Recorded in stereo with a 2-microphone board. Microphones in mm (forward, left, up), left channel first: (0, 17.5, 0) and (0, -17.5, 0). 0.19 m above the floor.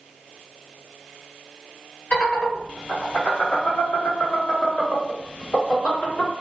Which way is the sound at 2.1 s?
35° left (ahead or behind).